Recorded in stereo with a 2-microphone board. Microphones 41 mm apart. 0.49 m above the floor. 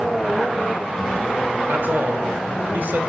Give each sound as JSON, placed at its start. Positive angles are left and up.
{"t": 1.7, "sound": "a man speaking", "side_deg": -50, "distance_m": 1.7}